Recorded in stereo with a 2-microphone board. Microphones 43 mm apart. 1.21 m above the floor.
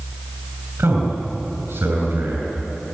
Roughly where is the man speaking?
Right.